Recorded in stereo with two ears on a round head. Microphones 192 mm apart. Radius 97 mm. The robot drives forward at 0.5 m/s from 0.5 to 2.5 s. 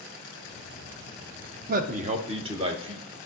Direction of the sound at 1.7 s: 45° right (ahead or behind).